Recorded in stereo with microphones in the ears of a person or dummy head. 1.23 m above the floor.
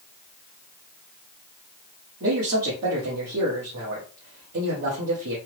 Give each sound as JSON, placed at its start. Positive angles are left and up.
{"t": 2.2, "sound": "a man speaking", "side_deg": -60, "distance_m": 1.0}